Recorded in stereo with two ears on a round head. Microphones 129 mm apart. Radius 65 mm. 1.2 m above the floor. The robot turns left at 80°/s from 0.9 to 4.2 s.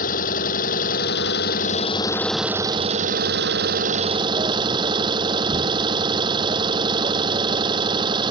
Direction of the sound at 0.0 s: 115° left.